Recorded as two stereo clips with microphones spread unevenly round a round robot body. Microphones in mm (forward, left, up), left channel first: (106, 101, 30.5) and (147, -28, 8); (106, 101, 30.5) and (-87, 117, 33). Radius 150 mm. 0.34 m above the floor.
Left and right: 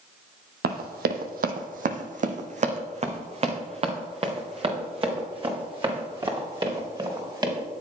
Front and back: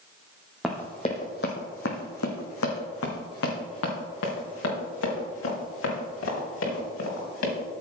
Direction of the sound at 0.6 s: 95° right.